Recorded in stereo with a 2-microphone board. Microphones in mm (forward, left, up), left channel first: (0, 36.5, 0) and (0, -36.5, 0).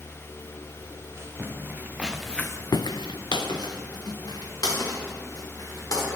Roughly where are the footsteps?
Right.